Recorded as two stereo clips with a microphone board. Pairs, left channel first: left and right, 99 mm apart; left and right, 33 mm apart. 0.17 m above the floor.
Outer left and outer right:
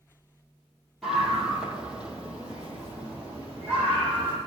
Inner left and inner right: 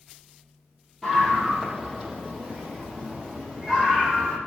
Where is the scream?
Centre (ahead or behind), 4.5 m; by 4.4 s 20° right (ahead or behind), 8 m.